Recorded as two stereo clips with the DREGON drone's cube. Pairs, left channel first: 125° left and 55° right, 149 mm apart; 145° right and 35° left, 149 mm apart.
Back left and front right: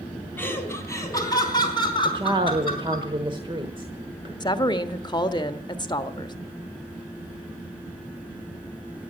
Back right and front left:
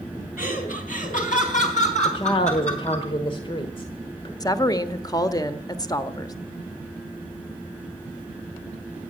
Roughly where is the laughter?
Behind.